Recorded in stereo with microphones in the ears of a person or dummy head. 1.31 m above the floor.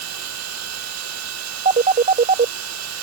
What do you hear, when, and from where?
0.0 s a machine running: 85° right
1.6 s a phone ringing: 40° right (ahead or behind)